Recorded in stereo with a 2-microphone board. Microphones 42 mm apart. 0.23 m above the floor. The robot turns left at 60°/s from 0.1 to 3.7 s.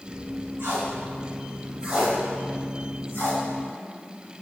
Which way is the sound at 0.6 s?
80° right.